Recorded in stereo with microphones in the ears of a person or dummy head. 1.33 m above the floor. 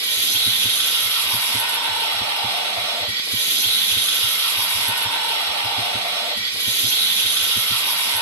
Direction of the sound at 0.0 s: 15° left (ahead or behind).